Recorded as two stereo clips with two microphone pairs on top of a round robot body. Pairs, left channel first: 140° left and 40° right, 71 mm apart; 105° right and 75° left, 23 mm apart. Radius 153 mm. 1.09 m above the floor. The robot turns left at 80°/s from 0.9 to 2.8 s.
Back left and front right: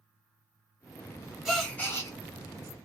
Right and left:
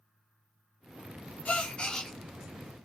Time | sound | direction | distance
1.4 | a gasp | 125° right | 0.9 m